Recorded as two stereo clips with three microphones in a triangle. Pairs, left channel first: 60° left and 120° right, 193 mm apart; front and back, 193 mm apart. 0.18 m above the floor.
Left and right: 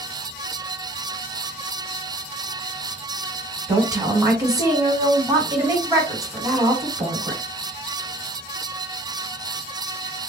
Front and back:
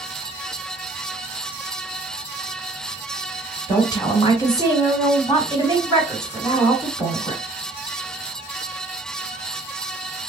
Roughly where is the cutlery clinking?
I don't hear cutlery clinking.